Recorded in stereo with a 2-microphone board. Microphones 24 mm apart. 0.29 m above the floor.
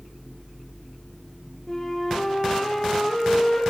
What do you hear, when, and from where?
1.7 s a flute: 10° left (ahead or behind), 4.5 m